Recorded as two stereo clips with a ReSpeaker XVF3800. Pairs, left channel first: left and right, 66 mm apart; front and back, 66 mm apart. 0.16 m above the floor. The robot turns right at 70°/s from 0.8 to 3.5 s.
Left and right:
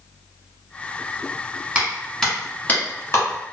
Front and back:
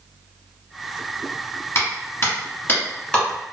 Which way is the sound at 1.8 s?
20° right.